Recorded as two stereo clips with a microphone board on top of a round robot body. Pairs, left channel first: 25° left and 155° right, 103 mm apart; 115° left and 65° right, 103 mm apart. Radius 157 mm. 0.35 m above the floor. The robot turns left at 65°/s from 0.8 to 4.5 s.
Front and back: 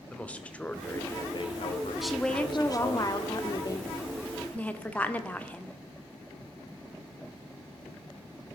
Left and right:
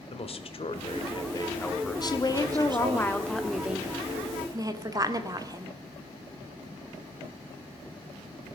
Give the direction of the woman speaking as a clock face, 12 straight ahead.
8 o'clock.